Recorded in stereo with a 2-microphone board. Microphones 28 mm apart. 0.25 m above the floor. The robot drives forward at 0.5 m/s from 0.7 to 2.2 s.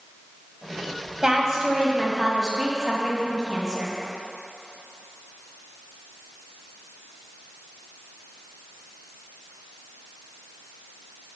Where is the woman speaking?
20° right (ahead or behind), 1.0 m; by 3.9 s 15° right (ahead or behind), 1.3 m.